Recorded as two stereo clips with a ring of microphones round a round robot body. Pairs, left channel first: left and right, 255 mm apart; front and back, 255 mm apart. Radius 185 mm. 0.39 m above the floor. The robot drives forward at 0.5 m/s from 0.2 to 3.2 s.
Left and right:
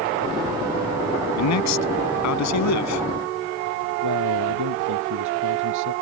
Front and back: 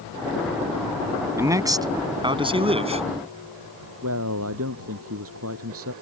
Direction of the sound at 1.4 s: 100° left.